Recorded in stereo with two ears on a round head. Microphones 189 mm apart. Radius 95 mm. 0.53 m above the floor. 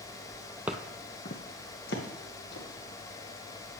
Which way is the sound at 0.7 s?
10° right (ahead or behind).